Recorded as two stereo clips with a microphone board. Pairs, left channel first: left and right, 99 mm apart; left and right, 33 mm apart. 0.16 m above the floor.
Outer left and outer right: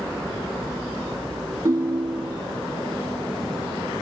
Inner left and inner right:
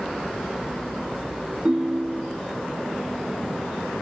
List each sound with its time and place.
1.6 s a ringtone: 35° right (ahead or behind)